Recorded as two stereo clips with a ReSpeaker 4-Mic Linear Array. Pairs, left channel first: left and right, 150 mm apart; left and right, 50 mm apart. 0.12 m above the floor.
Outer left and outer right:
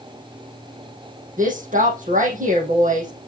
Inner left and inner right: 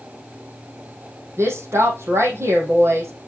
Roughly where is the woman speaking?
Right.